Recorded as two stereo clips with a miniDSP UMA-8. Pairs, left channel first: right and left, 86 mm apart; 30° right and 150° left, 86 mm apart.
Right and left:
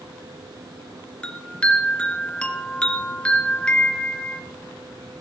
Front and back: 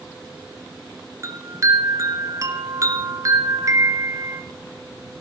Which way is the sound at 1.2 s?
165° right.